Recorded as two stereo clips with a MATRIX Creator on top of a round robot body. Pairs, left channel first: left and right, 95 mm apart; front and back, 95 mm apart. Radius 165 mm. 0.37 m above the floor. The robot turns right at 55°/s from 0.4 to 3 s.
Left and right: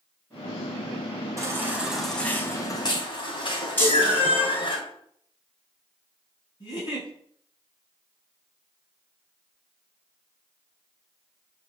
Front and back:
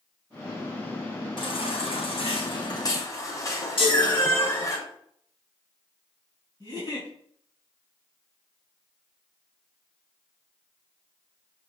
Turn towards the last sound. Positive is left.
turn(degrees=45)